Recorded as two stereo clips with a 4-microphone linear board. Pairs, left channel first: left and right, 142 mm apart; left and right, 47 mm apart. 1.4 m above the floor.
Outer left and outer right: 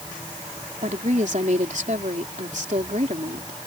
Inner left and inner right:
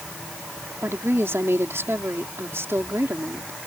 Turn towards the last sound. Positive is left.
turn(degrees=-60)  # may be behind; listen again after turning